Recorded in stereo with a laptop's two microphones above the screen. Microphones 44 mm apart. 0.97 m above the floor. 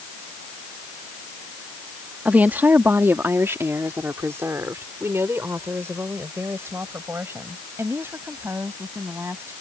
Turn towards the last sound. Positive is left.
turn(degrees=-70)  # may be behind; listen again after turning